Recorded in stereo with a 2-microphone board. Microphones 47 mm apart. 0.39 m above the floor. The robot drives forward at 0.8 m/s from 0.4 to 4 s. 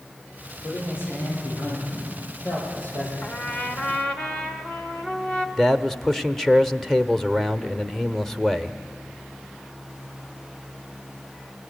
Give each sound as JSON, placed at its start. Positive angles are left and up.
{"t": 0.6, "sound": "a man speaking", "side_deg": 50, "distance_m": 9.5}
{"t": 3.2, "sound": "a trumpet", "side_deg": 25, "distance_m": 1.3}
{"t": 5.6, "sound": "a man speaking", "side_deg": 0, "distance_m": 0.8}